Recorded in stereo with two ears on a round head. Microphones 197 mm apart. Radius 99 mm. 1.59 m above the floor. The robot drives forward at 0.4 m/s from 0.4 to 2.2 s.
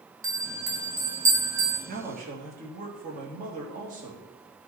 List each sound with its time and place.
0.2 s a bell: 15° right (ahead or behind), 2 m
1.9 s a man speaking: 40° right (ahead or behind), 3 m